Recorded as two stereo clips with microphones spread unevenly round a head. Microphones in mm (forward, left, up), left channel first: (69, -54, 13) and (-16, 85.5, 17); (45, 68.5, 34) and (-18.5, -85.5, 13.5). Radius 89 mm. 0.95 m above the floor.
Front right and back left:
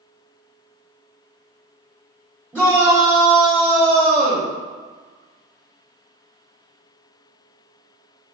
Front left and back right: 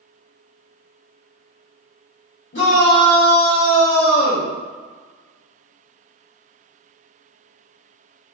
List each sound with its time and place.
2.5 s a shout: 35° left, 2.5 m; by 4.5 s 110° left, 1.9 m